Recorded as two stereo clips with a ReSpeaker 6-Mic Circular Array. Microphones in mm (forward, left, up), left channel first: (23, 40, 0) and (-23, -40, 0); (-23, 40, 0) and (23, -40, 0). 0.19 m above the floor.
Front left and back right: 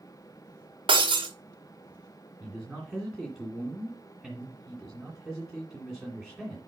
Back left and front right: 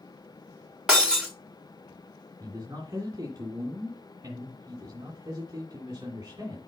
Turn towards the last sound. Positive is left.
turn(degrees=-30)